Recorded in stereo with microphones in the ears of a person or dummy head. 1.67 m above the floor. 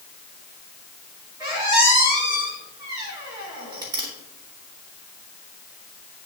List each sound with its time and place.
1.4 s a squeak: 15° right (ahead or behind), 1.9 m